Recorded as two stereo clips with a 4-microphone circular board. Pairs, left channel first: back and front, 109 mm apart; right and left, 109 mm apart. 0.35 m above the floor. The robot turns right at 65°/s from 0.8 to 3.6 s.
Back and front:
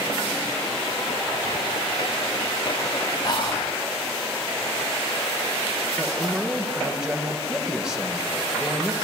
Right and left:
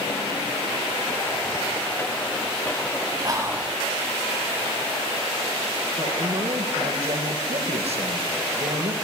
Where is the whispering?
135° left, 3 m; by 3.7 s 160° left, 3 m.